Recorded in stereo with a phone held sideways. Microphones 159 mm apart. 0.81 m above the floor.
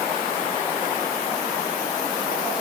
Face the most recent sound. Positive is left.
No sound to turn to.